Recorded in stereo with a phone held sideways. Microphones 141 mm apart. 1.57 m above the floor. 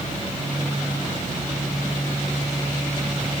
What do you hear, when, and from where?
Only background noise.